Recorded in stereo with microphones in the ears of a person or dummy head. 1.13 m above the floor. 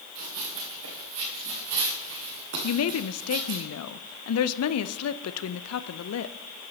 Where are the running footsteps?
70° right (ahead or behind), 5 m; by 3.6 s 60° right (ahead or behind), 3 m.